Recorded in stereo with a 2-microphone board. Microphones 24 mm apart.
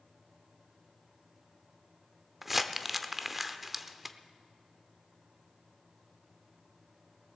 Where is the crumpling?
10° right (ahead or behind), 0.6 m.